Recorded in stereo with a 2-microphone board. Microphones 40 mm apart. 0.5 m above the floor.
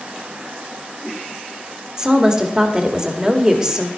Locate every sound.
2.0 s a woman speaking: 20° right (ahead or behind), 1.6 m